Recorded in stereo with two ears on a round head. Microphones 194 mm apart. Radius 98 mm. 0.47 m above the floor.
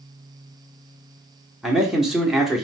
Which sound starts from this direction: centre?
A man speaking, at 1.6 s.